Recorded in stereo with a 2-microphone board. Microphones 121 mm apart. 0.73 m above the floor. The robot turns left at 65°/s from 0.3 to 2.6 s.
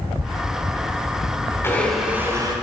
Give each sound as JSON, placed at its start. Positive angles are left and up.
{"t": 1.6, "sound": "a blender", "azimuth_deg": 20, "distance_m": 2.0}